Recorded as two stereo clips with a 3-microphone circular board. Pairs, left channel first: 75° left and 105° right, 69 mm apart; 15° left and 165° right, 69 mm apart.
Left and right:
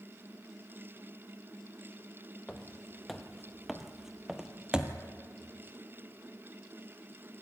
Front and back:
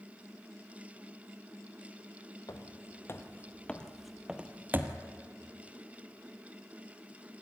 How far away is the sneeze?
No sneeze in this recording.